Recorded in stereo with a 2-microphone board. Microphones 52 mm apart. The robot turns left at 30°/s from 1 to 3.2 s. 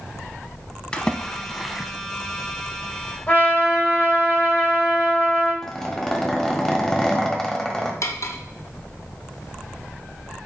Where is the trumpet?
25° left (ahead or behind), 3 m.